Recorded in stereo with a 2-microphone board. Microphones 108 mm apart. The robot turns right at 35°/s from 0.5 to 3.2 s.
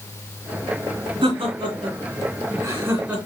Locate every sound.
1.2 s laughter: 55° right (ahead or behind), 2 m; by 3.2 s 10° right (ahead or behind), 2 m